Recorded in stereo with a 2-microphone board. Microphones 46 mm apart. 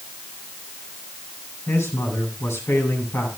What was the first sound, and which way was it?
A man speaking, 75° left (ahead or behind).